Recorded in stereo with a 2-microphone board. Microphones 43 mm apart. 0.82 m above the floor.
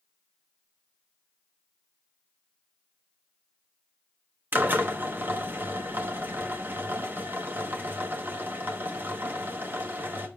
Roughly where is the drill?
Right.